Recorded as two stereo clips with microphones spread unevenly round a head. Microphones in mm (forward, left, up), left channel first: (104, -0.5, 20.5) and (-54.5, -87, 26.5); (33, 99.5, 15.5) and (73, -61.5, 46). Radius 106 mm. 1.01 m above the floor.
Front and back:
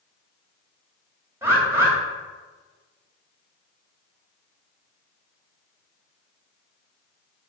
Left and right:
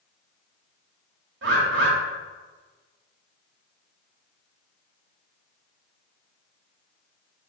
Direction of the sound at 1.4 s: 75° right.